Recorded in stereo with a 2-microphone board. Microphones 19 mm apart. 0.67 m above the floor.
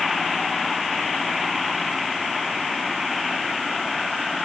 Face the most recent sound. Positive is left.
No sound to turn to.